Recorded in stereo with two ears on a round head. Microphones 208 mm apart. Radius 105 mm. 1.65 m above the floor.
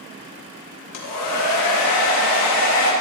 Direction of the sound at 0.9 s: 75° left (ahead or behind).